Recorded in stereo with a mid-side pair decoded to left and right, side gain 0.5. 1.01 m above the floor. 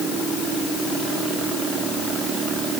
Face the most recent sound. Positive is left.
No sound to turn to.